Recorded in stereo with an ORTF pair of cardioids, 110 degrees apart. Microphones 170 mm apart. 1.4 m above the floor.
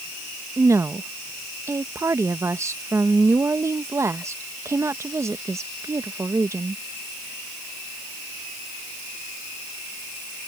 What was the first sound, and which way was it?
A woman speaking, 15° right.